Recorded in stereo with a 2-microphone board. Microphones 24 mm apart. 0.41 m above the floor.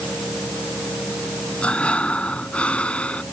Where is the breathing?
65° left (ahead or behind).